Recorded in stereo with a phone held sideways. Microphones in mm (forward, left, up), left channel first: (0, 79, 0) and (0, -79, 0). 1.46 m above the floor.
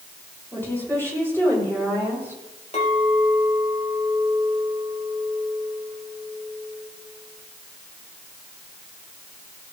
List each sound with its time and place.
0.5 s a woman speaking: 10° left (ahead or behind), 6.5 m; by 2.4 s 15° left (ahead or behind), 8.5 m
2.7 s a clink: 40° left (ahead or behind), 3.5 m